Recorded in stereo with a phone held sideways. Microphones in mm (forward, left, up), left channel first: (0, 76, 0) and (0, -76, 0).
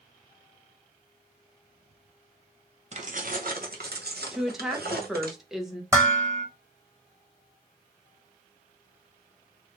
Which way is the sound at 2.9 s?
45° right (ahead or behind).